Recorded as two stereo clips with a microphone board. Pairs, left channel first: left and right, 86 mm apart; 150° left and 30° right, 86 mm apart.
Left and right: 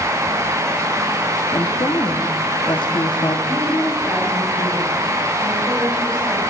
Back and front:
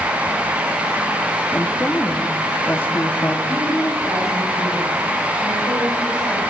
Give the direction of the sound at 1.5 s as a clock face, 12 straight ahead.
9 o'clock.